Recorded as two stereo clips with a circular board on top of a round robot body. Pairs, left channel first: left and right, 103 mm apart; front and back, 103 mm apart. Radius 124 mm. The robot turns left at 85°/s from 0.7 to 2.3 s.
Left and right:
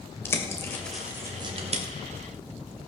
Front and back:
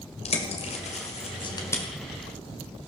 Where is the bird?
25° left, 2 m; by 1.8 s 75° right, 2 m.